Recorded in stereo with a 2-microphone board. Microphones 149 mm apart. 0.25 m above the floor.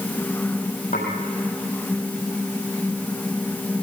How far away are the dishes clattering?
About 6.5 m.